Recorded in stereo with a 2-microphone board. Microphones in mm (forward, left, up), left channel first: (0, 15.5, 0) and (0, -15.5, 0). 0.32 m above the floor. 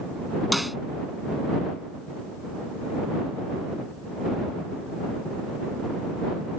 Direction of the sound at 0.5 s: 5° right (ahead or behind).